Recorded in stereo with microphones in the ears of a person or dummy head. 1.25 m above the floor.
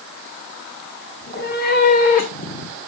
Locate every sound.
1.2 s a cat meowing: 55° left (ahead or behind), 2.0 m; by 2.8 s 40° left (ahead or behind), 1.3 m